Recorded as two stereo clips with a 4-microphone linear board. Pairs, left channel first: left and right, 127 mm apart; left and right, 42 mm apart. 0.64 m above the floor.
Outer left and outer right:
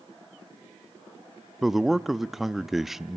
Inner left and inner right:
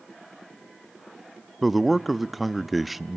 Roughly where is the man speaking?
Centre.